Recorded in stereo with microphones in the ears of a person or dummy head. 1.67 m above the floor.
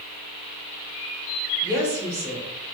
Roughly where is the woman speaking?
Centre.